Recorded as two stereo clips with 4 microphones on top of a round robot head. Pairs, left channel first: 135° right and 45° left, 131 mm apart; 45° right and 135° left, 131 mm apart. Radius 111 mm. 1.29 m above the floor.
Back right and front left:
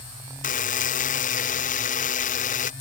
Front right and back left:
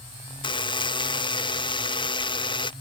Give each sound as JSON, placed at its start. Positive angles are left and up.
{"t": 0.4, "sound": "a buzzer", "azimuth_deg": -105}